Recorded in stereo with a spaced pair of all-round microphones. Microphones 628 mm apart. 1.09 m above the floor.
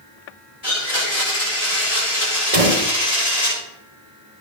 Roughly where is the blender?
Left.